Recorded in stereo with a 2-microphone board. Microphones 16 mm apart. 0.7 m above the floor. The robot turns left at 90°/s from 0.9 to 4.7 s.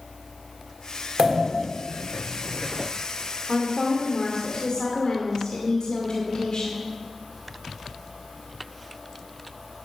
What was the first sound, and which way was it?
A pop, 135° right.